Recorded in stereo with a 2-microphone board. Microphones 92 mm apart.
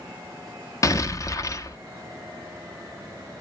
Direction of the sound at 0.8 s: 35° left (ahead or behind).